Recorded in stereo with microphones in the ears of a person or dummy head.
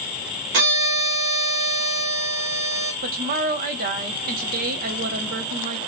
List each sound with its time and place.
0.5 s a violin: 65° right (ahead or behind), 1.7 m
3.0 s a woman speaking: 50° right (ahead or behind), 0.9 m